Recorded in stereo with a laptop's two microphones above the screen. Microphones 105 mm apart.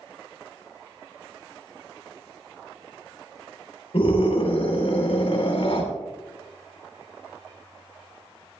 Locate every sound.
3.9 s a scream: 65° left (ahead or behind), 3.5 m